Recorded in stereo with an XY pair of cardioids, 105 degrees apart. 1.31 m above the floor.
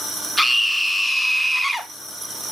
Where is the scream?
10° left, 1.0 m.